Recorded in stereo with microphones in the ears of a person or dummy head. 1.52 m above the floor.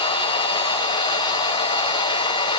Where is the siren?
I don't hear a siren.